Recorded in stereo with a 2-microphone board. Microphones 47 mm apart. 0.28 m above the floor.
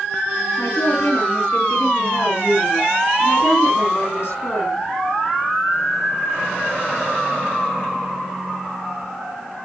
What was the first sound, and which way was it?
A woman speaking, 75° left (ahead or behind).